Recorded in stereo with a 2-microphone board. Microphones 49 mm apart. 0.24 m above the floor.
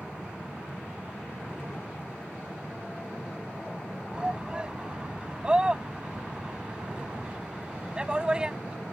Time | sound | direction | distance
4.1 | a shout | 20° right (ahead or behind) | ?